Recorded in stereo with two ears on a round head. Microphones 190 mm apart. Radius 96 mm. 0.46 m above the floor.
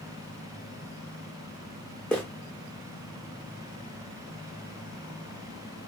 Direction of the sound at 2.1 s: 5° left (ahead or behind).